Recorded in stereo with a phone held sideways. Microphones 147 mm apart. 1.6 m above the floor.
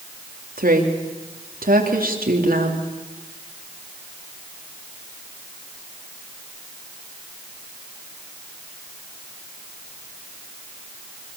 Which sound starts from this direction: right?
A woman speaking, at 0.6 s.